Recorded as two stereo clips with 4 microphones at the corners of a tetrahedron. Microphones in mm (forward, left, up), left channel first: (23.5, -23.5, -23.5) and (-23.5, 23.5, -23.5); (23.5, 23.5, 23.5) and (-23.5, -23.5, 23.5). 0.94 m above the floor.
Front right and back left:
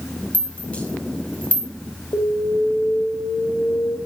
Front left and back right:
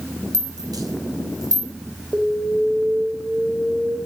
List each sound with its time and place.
0.3 s a rattle: 115° right, 5 m
2.1 s an alarm: 70° right, 5 m